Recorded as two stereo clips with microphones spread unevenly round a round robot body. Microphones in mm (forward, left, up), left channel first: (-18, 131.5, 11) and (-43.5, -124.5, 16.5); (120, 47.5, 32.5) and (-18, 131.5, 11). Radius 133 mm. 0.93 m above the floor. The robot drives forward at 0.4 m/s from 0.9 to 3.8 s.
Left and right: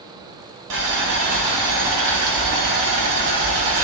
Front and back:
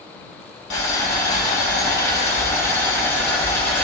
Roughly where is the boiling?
Ahead right.